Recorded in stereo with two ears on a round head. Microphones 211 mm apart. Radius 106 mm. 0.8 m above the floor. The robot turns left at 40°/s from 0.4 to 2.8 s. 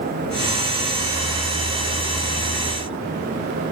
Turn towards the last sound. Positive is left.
No sound to turn to.